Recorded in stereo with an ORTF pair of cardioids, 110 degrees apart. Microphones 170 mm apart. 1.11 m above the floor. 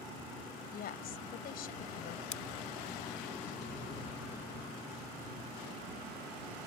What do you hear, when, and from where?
0.7 s a woman speaking: 60° left
2.3 s scissors: 45° left